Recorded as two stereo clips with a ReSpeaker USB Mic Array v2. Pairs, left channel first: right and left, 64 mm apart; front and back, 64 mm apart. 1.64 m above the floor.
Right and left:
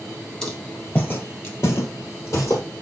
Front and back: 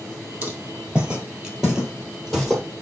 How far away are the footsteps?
About 1.7 m.